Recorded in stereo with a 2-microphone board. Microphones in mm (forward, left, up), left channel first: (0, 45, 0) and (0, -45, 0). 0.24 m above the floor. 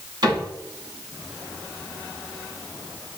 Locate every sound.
0.2 s a cupboard door: 50° right (ahead or behind), 2 m